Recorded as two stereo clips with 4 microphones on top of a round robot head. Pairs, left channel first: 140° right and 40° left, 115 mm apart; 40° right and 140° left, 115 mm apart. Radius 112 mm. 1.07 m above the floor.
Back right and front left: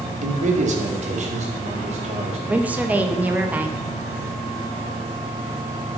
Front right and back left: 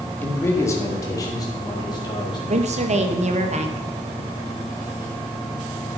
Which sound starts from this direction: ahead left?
A man speaking, at 0.2 s.